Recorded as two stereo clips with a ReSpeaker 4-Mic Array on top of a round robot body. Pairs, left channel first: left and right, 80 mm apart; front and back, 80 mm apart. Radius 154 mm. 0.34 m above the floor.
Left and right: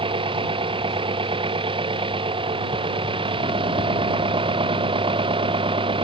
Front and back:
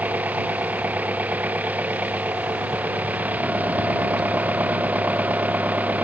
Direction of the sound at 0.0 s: 105° right.